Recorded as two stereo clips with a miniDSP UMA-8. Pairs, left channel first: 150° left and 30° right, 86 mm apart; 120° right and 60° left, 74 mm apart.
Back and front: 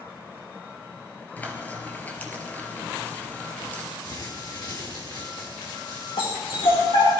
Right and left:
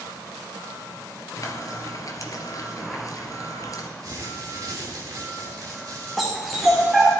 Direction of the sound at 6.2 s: 150° left.